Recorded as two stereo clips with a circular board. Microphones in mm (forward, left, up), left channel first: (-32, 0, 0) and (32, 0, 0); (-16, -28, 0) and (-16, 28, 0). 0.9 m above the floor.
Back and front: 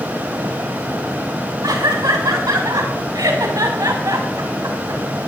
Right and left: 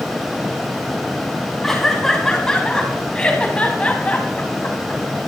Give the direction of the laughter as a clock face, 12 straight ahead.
12 o'clock.